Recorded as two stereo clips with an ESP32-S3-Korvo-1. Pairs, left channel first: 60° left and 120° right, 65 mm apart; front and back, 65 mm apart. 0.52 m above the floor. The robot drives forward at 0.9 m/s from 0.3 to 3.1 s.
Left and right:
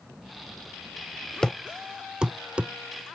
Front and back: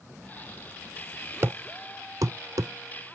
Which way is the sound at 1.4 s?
135° left.